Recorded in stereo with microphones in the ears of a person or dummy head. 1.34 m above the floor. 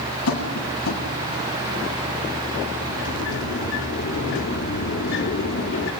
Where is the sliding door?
65° left (ahead or behind), 3 m.